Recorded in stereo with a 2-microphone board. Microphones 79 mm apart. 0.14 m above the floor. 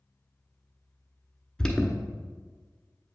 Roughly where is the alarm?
Centre.